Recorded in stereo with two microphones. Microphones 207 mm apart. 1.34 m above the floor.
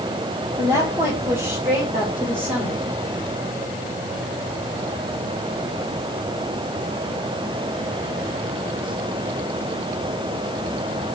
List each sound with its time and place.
0.6 s a woman speaking: 15° right (ahead or behind), 1.5 m; by 2.8 s 5° right (ahead or behind), 3 m